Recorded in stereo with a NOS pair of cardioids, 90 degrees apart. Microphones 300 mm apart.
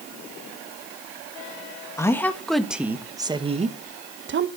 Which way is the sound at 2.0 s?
10° left.